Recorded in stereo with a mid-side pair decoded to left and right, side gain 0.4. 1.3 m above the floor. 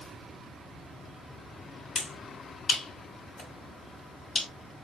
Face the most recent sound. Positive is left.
turn(degrees=65)